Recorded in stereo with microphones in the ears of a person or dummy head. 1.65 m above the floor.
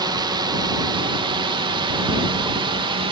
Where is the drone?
20° right (ahead or behind); by 3.1 s 25° right (ahead or behind).